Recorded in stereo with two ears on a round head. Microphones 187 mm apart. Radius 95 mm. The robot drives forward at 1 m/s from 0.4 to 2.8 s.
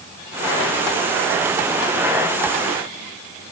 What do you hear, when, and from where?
Only background noise.